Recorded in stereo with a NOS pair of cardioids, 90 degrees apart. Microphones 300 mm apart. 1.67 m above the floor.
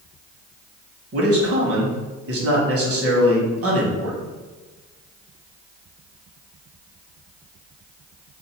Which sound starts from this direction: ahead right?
A man speaking, at 1.1 s.